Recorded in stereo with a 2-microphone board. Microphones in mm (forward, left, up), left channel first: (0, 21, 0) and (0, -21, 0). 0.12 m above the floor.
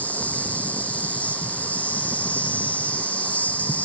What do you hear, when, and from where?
0.0 s an insect: 30° left (ahead or behind), 3.5 m